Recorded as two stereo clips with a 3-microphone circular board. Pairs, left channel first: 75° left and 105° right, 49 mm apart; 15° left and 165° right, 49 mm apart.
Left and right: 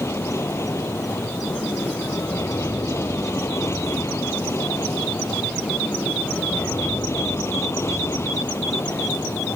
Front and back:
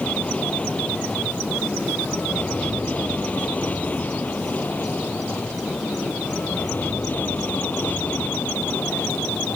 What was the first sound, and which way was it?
An aircraft, 80° left.